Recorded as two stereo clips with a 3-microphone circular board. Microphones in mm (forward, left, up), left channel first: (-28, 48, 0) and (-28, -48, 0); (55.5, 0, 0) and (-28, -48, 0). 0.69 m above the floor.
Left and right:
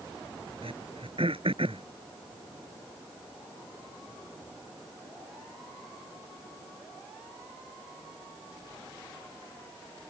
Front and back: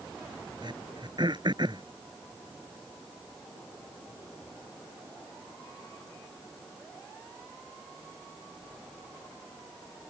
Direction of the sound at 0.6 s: 110° right.